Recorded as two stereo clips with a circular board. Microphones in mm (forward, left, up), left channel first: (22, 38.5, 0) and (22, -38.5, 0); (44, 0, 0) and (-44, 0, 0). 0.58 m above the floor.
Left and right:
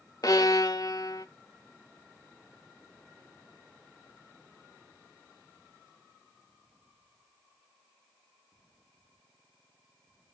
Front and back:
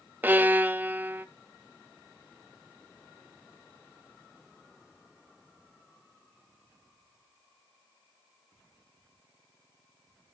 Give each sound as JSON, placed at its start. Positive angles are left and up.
{"t": 0.2, "sound": "a violin", "azimuth_deg": 115, "distance_m": 0.5}